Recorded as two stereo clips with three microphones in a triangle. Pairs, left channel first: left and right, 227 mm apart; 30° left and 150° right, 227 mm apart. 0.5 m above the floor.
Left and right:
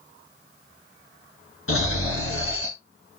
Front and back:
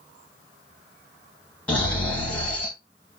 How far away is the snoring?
About 1.9 m.